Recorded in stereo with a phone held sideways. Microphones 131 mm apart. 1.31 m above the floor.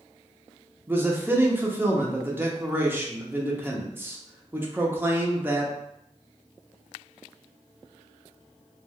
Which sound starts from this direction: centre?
A man speaking, at 0.9 s.